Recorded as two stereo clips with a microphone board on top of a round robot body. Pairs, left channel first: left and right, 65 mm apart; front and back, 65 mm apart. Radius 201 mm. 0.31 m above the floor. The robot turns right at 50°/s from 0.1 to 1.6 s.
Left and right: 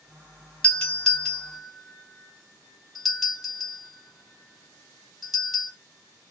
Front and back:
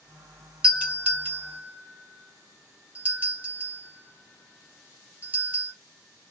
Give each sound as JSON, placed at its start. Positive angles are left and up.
{"t": 0.6, "sound": "a doorbell", "azimuth_deg": 130, "distance_m": 1.8}